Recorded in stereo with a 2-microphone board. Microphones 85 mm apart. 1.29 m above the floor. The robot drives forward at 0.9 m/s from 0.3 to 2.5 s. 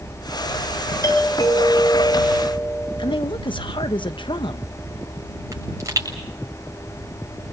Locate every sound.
1.0 s a doorbell: 45° left (ahead or behind), 7.5 m; by 3.2 s 50° left (ahead or behind), 6.5 m
3.0 s a woman speaking: 75° left (ahead or behind), 1.1 m
5.5 s a pop: 40° right (ahead or behind), 7 m